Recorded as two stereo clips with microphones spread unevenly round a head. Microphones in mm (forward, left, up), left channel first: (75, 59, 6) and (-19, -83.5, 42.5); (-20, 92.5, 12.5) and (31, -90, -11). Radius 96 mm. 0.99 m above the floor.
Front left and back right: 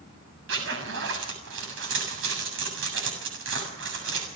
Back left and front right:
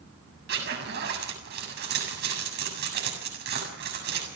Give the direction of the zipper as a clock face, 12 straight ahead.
4 o'clock.